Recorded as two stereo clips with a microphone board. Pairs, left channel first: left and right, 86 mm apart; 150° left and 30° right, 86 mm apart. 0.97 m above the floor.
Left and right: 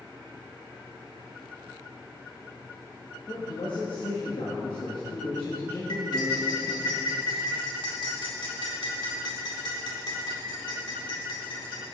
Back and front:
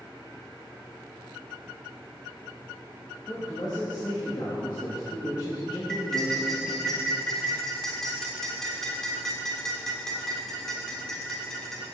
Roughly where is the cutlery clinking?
Ahead left.